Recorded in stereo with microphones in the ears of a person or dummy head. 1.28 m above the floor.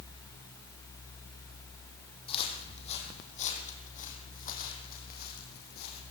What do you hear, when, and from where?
2.3 s footsteps: 40° left (ahead or behind), 4 m; by 6.0 s 65° left (ahead or behind), 4.5 m